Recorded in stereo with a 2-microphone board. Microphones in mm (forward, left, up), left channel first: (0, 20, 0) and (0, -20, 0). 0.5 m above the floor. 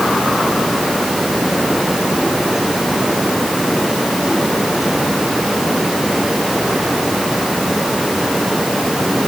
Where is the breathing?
No breathing in this recording.